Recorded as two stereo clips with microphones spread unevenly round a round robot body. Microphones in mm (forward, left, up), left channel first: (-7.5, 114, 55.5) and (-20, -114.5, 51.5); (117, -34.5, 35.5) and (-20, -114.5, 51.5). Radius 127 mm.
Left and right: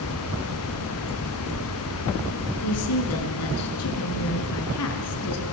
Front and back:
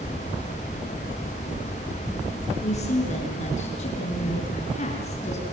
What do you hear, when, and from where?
2.6 s a woman speaking: 85° left, 5.5 m